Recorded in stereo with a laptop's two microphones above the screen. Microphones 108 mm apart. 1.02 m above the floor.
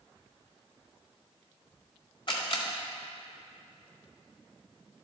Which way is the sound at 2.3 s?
45° left (ahead or behind).